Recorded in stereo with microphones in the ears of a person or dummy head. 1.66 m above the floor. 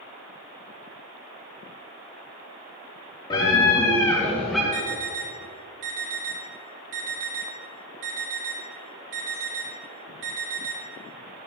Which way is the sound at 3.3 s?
20° left (ahead or behind).